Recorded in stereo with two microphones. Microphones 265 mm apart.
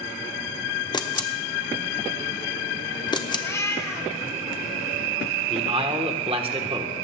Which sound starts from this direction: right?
A man speaking, at 5.5 s.